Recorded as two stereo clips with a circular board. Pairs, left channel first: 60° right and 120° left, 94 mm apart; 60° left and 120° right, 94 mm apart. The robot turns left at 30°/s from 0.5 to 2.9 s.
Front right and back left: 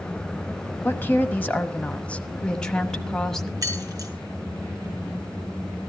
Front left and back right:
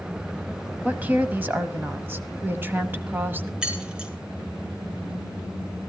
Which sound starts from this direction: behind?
Keys jangling, at 3.6 s.